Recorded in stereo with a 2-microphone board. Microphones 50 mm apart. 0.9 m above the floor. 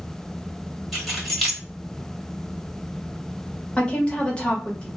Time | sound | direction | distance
0.9 | keys jangling | centre (ahead or behind) | 1.1 m
3.8 | a woman speaking | 20° left (ahead or behind) | 1.0 m